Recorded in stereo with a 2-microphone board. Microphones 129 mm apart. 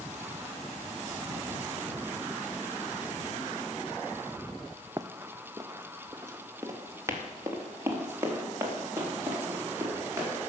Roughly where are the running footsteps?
Right.